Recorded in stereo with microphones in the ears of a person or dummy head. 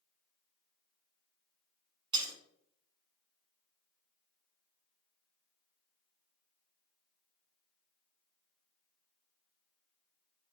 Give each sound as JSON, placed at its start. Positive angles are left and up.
{"t": 2.1, "sound": "breaking glass", "side_deg": -25, "distance_m": 2.5}